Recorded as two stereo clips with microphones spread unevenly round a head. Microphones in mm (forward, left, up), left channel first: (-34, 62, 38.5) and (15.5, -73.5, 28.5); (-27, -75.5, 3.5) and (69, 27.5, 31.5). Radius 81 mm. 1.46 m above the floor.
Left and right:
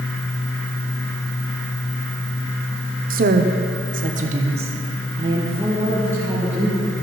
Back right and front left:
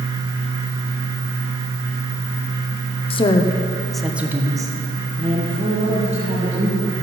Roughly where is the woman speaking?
Right.